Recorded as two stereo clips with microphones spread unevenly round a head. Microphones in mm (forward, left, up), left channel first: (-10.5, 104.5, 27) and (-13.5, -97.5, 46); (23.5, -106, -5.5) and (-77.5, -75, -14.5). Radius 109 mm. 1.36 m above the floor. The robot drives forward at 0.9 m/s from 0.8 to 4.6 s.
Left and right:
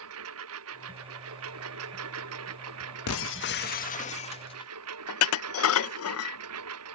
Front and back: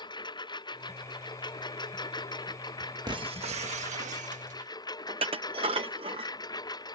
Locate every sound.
0.0 s a lawn mower: 65° right; by 7.0 s 70° right
3.1 s breaking glass: 100° left; by 4.7 s 155° left
5.1 s dishes clattering: 110° left